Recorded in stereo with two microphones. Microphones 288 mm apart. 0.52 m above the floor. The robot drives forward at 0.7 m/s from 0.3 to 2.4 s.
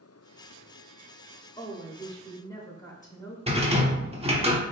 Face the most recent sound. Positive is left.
turn(degrees=-20)  # may be behind; listen again after turning